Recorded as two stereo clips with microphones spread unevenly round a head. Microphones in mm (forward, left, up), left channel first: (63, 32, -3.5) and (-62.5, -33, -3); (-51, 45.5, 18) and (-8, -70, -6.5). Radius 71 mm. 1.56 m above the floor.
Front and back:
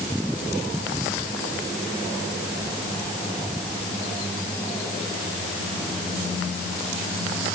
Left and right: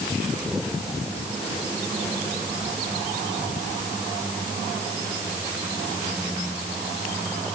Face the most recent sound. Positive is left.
No sound to turn to.